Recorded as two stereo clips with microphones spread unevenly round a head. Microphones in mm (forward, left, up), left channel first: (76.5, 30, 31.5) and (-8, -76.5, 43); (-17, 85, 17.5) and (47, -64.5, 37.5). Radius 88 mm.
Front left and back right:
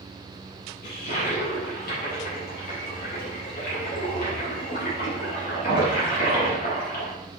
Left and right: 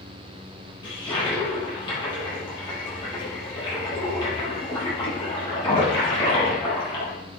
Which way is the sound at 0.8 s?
50° left.